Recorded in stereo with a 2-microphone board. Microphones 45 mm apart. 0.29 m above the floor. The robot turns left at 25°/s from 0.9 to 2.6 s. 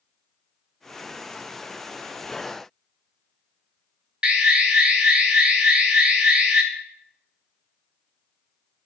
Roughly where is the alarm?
Right.